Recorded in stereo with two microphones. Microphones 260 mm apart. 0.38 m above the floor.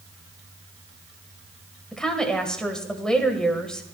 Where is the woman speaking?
5° left (ahead or behind), 1.5 m.